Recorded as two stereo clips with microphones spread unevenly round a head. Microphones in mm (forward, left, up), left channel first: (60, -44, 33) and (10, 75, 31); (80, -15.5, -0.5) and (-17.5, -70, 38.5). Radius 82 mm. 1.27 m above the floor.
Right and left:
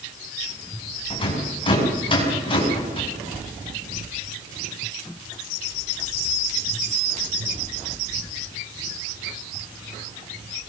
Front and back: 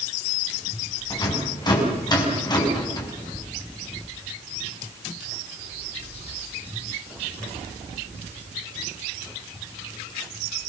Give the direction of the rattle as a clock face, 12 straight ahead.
1 o'clock.